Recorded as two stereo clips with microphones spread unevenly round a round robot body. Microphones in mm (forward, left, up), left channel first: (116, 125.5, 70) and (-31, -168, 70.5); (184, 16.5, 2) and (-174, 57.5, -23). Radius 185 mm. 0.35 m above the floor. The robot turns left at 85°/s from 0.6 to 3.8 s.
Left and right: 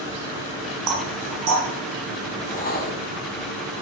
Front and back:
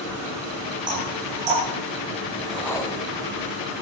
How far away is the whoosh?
About 1.4 m.